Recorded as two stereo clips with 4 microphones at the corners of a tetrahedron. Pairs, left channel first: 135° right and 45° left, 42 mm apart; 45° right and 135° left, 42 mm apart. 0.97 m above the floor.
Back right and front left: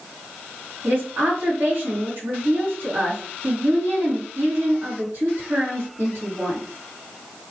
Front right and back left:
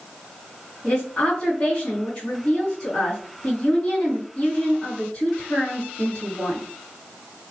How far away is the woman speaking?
About 2.5 m.